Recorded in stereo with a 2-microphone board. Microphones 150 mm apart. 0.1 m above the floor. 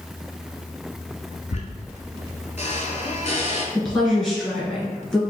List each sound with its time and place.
1.5 s a squeak: 50° left (ahead or behind), 0.6 m
3.8 s a woman speaking: 5° left (ahead or behind), 1.3 m